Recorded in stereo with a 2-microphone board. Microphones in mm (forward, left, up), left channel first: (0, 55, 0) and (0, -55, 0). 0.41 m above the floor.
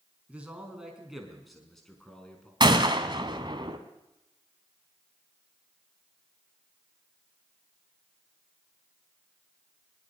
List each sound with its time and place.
0.3 s a man speaking: 10° right (ahead or behind), 4.5 m; by 2.5 s 10° left (ahead or behind), 5 m
2.6 s a gunshot: 45° right (ahead or behind), 2.0 m